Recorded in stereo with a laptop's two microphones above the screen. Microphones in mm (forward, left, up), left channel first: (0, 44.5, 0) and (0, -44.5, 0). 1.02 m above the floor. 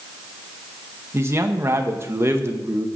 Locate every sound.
1.1 s a man speaking: 30° right (ahead or behind), 0.7 m